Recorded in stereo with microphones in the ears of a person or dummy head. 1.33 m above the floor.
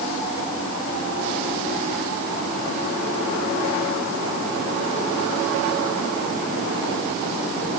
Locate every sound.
Only background noise.